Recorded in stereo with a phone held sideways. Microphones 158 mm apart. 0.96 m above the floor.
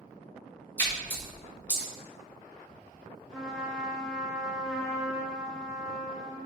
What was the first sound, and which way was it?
A splash, 10° left (ahead or behind).